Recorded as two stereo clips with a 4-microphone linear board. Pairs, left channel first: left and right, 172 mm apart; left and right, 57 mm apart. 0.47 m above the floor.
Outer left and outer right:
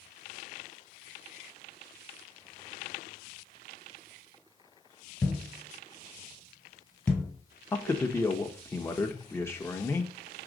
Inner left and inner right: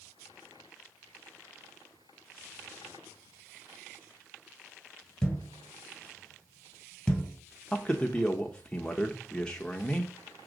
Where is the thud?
5° left (ahead or behind), 1.4 m.